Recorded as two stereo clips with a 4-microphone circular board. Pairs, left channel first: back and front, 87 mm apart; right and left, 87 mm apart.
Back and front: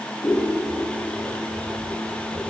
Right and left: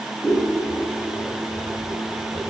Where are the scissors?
135° right, 2.5 m.